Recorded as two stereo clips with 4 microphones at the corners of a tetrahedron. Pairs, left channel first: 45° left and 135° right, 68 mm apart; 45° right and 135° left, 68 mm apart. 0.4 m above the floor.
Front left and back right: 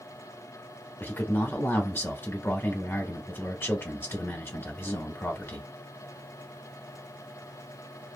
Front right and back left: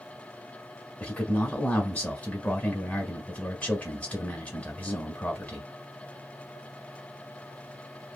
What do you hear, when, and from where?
1.0 s a man speaking: 10° left, 1.2 m